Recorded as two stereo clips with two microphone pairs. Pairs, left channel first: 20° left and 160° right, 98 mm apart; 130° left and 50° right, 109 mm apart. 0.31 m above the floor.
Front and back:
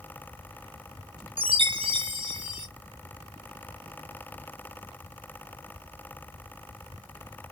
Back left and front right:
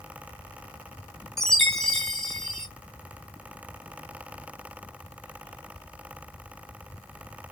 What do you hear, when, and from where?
1.4 s a chime: 145° right, 0.7 m